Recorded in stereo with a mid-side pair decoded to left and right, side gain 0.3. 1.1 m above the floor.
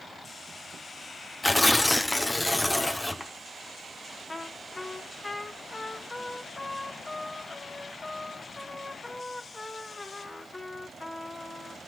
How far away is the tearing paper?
About 1.5 m.